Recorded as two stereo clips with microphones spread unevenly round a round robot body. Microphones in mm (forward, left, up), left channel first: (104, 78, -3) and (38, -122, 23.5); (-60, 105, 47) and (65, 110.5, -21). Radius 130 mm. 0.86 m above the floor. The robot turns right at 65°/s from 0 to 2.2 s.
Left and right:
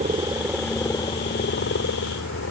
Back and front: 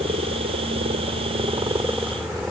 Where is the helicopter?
55° right; by 2.5 s 80° left.